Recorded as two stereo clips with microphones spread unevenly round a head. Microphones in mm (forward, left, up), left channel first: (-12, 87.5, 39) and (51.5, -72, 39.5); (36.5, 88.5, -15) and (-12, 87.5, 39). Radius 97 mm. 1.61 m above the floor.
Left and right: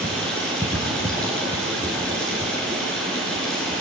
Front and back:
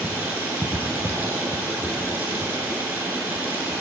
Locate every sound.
0.0 s running water: 165° right, 4.5 m